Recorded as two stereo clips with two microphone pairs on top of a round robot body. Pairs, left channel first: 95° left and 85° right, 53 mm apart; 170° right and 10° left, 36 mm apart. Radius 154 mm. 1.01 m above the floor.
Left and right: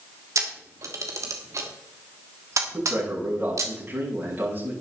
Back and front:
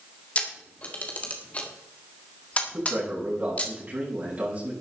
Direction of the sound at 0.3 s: 115° right.